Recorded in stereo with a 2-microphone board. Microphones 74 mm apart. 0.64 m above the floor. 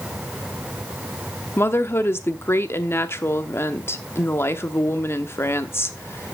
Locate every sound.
1.6 s a woman speaking: 35° left (ahead or behind), 1.0 m